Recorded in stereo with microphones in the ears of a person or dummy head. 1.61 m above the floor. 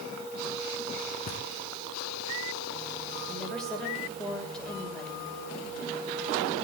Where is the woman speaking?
10° left (ahead or behind), 6 m.